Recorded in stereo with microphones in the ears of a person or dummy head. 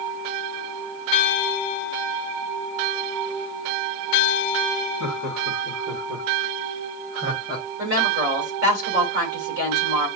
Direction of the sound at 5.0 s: 65° right (ahead or behind).